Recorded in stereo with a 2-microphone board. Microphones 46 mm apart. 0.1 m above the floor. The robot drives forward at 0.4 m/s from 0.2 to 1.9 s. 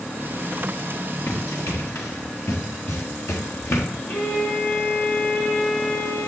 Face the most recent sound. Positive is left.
turn(degrees=70)  # may be behind; listen again after turning